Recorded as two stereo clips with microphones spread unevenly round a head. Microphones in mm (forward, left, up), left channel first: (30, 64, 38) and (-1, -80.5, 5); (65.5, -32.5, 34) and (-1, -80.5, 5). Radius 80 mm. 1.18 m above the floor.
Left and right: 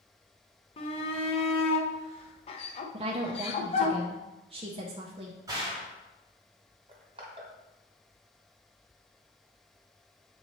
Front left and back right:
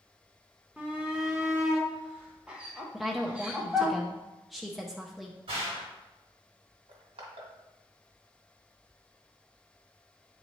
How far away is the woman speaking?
About 0.7 m.